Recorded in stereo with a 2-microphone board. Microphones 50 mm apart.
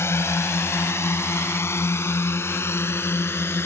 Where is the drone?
70° left (ahead or behind); by 3.6 s 60° left (ahead or behind).